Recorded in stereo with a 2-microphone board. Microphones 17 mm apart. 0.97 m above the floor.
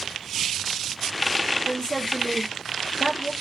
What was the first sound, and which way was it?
A woman speaking, 45° left (ahead or behind).